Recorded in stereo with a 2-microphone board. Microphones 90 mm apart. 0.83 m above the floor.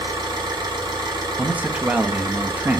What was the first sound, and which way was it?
An engine running, 55° right (ahead or behind).